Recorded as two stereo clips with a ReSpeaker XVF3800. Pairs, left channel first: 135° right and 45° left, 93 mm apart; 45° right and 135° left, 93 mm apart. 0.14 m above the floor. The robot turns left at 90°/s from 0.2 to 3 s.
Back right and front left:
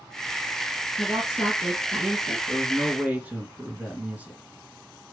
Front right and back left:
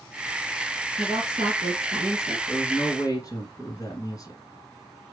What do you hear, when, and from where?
1.0 s a woman speaking: 160° right, 2 m; by 2.4 s 75° left, 2 m
2.5 s a man speaking: 25° left, 1.8 m; by 4.4 s 20° right, 1.8 m